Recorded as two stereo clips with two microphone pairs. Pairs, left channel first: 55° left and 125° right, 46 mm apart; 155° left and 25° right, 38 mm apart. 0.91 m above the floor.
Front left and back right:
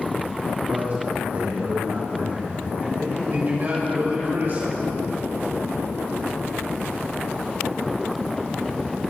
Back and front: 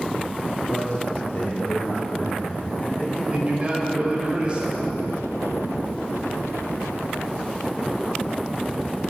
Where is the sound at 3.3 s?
85° right, 5 m.